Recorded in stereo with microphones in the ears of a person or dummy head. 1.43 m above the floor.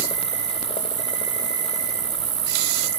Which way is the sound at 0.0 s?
30° right (ahead or behind).